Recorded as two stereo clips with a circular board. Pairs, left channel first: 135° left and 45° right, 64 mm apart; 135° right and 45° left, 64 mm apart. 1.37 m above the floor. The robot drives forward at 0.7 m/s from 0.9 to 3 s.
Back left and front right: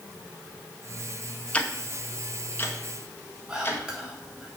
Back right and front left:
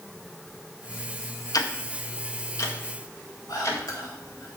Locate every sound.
1.5 s ticking: 155° right, 0.7 m; by 3.8 s 170° right, 1.7 m
3.5 s whispering: 120° right, 3.5 m